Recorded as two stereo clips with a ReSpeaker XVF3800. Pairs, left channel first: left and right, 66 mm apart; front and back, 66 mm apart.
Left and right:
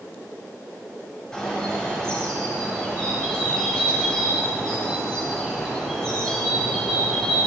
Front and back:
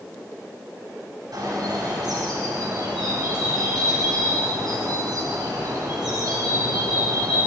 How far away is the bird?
About 3.5 m.